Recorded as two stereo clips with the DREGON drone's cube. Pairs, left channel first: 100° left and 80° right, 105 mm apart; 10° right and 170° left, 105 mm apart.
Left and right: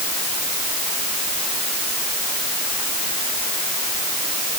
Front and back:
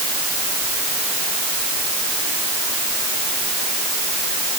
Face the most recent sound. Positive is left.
No sound to turn to.